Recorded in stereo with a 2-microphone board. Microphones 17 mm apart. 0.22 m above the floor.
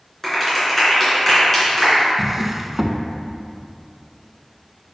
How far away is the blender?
I don't hear a blender.